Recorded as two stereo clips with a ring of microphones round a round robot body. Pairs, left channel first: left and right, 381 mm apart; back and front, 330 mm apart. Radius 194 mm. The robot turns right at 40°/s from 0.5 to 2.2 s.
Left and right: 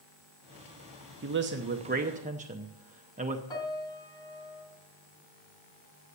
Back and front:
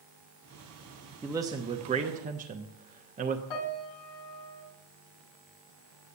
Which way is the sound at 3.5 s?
170° left.